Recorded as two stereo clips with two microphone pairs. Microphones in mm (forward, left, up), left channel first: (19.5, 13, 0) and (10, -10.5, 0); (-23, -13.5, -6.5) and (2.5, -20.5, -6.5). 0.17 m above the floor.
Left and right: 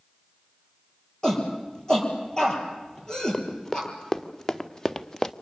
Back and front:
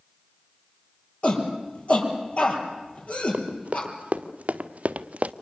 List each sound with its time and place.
1.2 s a shout: 135° left, 5 m
3.3 s running footsteps: 5° left, 2.5 m